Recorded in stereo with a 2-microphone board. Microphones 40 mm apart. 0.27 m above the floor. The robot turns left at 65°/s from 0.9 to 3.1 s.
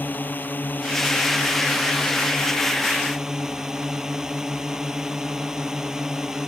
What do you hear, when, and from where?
0.0 s a drone: 130° left; by 6.5 s 10° right